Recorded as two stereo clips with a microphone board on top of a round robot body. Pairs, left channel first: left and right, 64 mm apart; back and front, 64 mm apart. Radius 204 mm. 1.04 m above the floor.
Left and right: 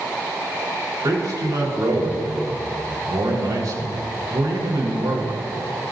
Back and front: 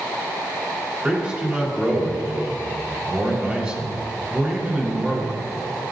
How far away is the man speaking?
About 4.5 m.